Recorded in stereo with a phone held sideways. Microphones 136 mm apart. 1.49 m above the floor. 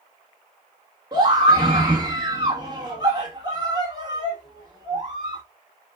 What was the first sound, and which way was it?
A scream, 30° right (ahead or behind).